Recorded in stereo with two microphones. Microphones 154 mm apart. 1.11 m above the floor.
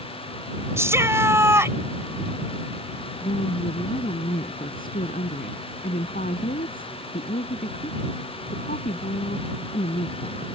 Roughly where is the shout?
Centre.